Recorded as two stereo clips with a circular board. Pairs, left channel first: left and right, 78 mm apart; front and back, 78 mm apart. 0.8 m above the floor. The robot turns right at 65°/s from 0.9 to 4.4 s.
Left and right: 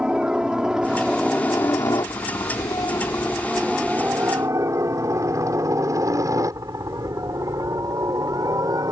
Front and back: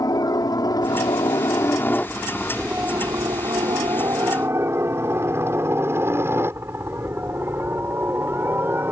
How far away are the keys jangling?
I don't hear keys jangling.